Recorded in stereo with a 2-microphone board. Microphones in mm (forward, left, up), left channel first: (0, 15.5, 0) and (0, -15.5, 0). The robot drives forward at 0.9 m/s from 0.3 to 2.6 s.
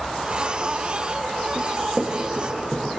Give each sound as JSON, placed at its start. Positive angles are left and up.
{"t": 1.6, "sound": "running footsteps", "side_deg": 0, "distance_m": 6.0}